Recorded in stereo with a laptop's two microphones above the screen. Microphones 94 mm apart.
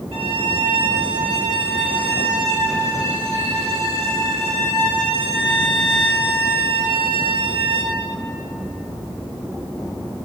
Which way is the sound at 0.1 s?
85° right.